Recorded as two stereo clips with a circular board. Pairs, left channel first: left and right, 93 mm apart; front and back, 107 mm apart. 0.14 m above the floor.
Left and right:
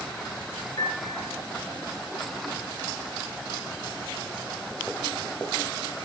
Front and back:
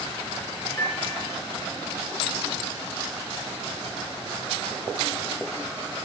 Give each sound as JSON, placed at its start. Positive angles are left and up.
{"t": 0.8, "sound": "a piano", "azimuth_deg": 60, "distance_m": 2.0}